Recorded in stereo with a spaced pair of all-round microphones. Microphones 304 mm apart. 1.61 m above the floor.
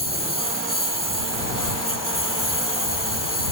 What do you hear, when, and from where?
0.0 s a lawn mower: 75° left (ahead or behind)